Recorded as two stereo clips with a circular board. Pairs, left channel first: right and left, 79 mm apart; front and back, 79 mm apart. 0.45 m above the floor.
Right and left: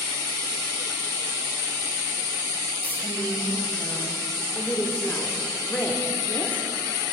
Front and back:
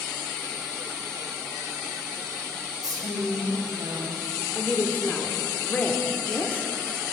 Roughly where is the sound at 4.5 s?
Ahead right.